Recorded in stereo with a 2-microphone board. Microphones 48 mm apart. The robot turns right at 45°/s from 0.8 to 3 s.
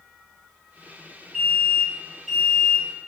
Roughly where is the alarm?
Centre.